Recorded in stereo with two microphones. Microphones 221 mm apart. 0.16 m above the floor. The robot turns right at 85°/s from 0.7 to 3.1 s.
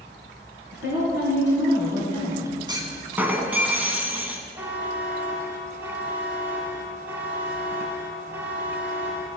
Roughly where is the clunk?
Centre.